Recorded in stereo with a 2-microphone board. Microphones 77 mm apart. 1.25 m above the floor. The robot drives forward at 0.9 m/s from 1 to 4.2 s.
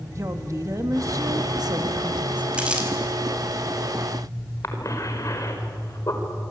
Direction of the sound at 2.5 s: 15° right (ahead or behind).